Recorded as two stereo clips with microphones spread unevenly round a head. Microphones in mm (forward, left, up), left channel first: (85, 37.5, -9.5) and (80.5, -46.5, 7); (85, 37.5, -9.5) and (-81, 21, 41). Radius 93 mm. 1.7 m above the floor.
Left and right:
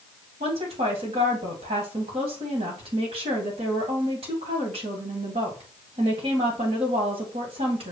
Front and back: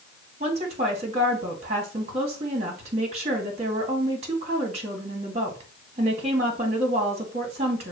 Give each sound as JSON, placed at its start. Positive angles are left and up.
{"t": 0.4, "sound": "a woman speaking", "azimuth_deg": -115, "distance_m": 2.0}